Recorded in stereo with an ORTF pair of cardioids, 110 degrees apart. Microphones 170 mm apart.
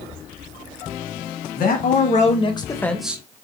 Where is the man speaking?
55° left, 1.6 m; by 3.4 s 25° right, 0.9 m.